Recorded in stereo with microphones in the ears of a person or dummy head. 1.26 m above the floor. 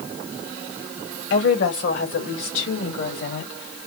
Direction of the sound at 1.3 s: 65° left (ahead or behind).